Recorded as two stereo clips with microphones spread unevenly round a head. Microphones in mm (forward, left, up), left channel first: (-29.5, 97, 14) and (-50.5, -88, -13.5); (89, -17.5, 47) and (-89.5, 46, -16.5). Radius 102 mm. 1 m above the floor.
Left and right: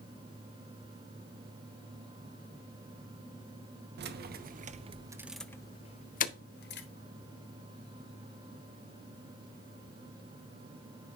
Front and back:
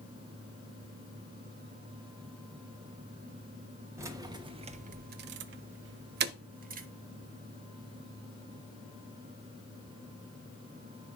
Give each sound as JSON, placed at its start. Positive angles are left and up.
{"t": 4.0, "sound": "keys jangling", "azimuth_deg": -125, "distance_m": 0.9}